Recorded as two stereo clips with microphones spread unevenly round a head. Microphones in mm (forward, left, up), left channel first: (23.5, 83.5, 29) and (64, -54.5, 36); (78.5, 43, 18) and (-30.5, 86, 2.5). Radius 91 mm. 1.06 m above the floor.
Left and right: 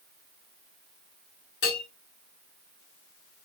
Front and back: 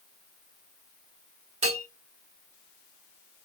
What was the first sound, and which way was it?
A bell, 130° left.